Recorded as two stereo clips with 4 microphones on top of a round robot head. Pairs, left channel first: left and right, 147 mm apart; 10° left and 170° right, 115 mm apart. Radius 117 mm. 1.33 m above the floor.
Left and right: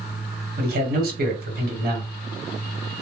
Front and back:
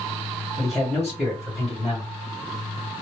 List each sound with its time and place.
0.6 s a man speaking: 80° right, 1.2 m